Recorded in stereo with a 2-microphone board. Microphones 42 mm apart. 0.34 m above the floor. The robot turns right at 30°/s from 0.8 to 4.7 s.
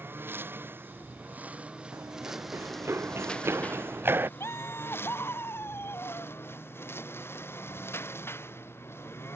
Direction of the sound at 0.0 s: 60° right (ahead or behind).